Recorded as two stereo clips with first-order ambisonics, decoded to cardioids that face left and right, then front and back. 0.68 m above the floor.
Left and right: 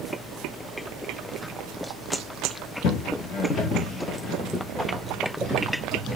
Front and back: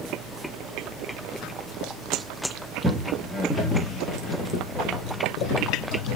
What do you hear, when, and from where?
2.8 s footsteps: 110° left, 0.8 m; by 6.2 s 15° right, 1.5 m